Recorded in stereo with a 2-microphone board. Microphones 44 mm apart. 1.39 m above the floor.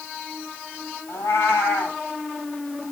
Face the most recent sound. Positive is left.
turn(degrees=75)  # may be behind; listen again after turning